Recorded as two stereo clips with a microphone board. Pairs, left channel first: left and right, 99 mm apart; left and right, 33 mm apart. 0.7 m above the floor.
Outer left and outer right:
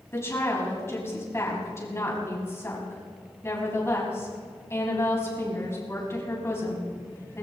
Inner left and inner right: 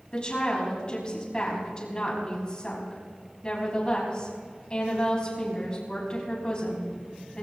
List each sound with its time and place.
0.1 s a woman speaking: 25° left (ahead or behind), 5 m